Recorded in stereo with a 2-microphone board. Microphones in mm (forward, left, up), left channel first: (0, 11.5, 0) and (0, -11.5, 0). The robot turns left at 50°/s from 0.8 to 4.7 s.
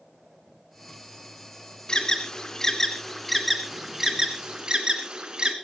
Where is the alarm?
35° left (ahead or behind), 3 m; by 5.5 s 35° right (ahead or behind), 3 m.